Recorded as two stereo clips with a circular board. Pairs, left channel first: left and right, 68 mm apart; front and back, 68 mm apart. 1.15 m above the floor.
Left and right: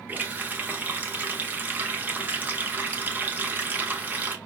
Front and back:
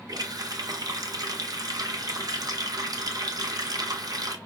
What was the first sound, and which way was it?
A running tap, 155° right.